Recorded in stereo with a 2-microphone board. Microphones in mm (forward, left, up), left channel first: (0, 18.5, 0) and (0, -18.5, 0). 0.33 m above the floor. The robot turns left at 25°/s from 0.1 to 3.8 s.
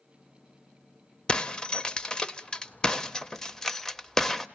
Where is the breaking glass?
25° left (ahead or behind), 0.6 m; by 4.5 s 10° left (ahead or behind), 0.6 m.